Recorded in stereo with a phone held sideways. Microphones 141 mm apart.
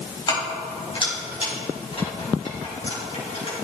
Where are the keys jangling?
30° left (ahead or behind), 3.5 m; by 3.5 s 50° left (ahead or behind), 5.5 m.